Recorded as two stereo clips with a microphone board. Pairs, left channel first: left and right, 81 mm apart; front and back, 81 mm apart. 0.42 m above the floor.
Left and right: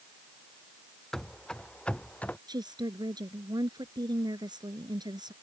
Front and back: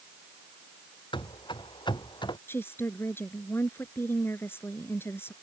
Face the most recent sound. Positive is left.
turn(degrees=-60)